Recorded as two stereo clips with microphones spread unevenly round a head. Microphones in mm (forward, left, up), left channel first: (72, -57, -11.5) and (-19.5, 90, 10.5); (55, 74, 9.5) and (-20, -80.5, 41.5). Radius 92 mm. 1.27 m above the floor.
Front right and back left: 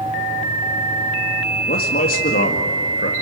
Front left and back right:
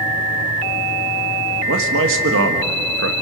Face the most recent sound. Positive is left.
turn(degrees=-105)